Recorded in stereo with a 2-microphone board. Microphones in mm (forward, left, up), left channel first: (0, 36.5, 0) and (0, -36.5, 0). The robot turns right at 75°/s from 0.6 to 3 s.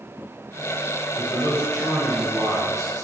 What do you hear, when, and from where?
1.1 s a man speaking: 105° left, 1.5 m; by 3.0 s 115° right, 1.5 m